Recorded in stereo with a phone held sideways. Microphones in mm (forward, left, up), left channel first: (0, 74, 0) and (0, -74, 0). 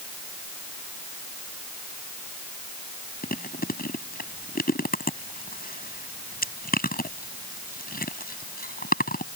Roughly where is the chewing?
Left.